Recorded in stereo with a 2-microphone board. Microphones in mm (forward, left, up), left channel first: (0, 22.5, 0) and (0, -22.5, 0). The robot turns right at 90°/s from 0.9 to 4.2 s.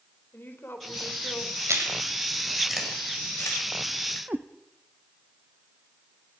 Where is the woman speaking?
55° left, 4 m; by 1.6 s 115° left, 4 m.